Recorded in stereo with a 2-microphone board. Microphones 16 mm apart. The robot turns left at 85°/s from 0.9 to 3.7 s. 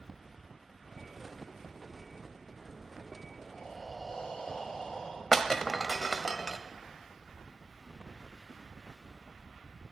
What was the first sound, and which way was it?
Breathing, 75° left (ahead or behind).